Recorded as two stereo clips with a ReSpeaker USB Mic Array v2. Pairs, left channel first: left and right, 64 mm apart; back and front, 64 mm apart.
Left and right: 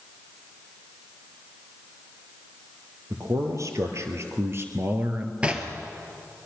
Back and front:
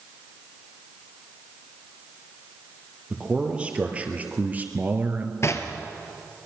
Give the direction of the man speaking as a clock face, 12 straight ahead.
2 o'clock.